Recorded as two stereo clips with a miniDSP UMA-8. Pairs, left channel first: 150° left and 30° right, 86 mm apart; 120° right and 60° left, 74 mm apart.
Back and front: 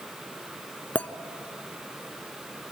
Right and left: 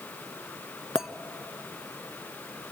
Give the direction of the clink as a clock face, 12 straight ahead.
8 o'clock.